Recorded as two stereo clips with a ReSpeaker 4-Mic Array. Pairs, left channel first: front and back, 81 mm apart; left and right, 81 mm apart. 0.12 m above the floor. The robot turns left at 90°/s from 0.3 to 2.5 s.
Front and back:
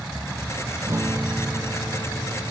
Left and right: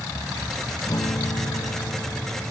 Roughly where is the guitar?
Behind left.